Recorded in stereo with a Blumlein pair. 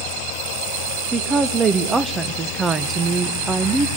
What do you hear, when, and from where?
1.1 s a woman speaking: 15° right, 1.3 m